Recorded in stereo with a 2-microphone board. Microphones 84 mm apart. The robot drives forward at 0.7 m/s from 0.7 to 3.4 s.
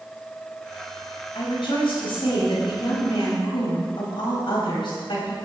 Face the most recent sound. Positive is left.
turn(degrees=75)  # may be behind; listen again after turning